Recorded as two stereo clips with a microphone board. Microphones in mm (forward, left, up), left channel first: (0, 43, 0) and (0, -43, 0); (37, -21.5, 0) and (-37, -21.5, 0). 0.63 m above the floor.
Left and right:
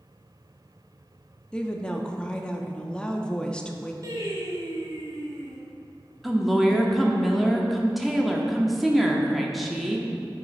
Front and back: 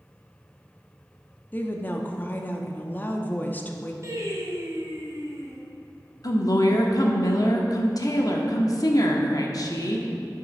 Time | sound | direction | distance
1.5 | a woman speaking | 25° left | 0.6 m
4.0 | singing | 135° right | 1.7 m
6.2 | a woman speaking | straight ahead | 0.9 m